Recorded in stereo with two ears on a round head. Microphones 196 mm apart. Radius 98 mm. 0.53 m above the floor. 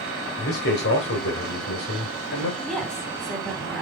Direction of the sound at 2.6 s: 5° left (ahead or behind).